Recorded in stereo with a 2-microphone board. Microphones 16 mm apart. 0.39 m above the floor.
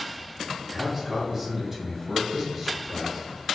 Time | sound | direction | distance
0.7 | a man speaking | 20° right (ahead or behind) | 1.5 m